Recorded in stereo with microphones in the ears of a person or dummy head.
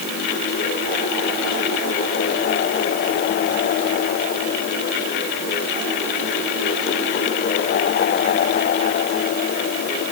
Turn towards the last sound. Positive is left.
No sound to turn to.